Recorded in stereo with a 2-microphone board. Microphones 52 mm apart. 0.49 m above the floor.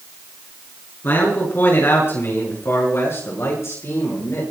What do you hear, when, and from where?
1.0 s a man speaking: 45° left (ahead or behind), 7 m; by 4.4 s 60° left (ahead or behind), 8.5 m